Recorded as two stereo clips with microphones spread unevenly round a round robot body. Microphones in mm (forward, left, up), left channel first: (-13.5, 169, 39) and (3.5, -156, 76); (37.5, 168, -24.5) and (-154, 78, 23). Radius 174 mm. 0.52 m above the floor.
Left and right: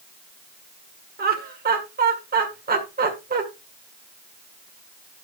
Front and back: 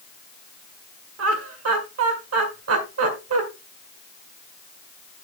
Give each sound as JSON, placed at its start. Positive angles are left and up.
{"t": 1.2, "sound": "laughter", "azimuth_deg": -150, "distance_m": 1.9}